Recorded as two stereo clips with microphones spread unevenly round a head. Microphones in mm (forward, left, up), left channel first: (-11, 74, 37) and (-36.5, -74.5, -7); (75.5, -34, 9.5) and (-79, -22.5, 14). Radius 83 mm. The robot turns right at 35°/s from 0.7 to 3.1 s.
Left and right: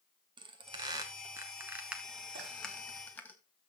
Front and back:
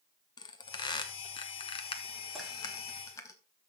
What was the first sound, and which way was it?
A squeak, 35° right.